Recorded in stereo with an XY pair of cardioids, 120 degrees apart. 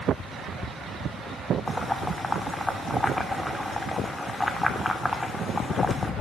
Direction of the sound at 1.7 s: 10° left.